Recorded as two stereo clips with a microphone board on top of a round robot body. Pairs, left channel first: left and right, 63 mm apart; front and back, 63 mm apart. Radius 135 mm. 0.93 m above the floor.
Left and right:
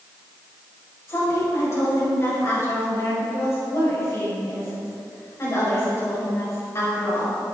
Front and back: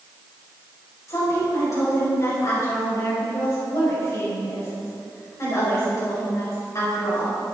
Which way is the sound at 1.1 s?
40° left.